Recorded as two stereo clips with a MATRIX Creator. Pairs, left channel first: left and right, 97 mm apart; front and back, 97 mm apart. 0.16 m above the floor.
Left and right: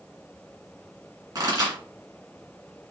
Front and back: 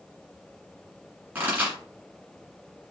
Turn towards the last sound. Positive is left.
turn(degrees=-120)